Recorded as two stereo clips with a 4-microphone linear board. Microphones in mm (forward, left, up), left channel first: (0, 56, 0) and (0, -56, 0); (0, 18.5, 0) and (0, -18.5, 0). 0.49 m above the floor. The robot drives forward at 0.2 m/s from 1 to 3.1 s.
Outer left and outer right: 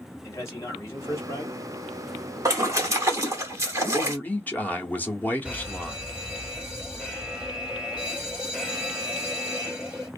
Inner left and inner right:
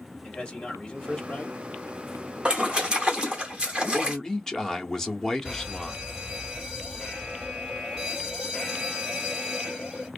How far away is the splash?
About 0.9 m.